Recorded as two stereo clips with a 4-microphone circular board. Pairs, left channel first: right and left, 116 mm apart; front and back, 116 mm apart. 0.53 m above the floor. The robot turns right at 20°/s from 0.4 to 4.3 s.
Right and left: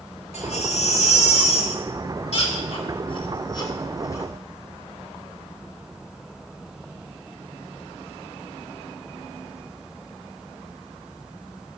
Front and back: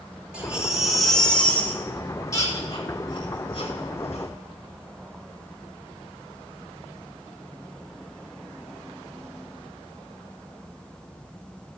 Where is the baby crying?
100° right, 3 m; by 4.3 s 25° right, 3 m.